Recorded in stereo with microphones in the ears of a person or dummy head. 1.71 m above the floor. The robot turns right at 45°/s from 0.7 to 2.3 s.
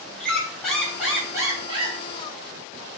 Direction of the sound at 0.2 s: Straight behind.